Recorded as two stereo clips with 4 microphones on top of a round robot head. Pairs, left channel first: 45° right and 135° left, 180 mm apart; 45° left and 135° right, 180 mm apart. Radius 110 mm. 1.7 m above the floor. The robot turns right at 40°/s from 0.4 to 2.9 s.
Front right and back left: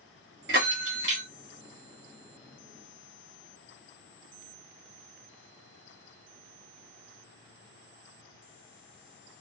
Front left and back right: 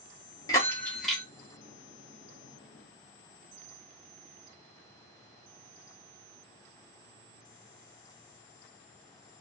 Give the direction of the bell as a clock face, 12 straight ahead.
8 o'clock.